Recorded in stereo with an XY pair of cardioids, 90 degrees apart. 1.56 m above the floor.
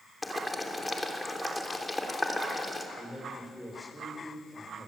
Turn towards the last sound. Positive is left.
turn(degrees=10)